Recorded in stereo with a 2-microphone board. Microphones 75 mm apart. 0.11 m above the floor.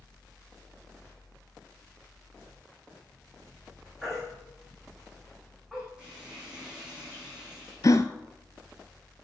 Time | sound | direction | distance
4.0 | a baby crying | 10° right (ahead or behind) | 6.5 m
6.0 | frying | 15° right (ahead or behind) | 6.5 m
7.8 | a gasp | 45° left (ahead or behind) | 0.7 m